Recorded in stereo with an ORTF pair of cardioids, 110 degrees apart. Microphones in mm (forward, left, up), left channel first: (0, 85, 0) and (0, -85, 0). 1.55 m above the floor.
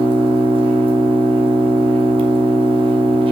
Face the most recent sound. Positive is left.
turn(degrees=-30)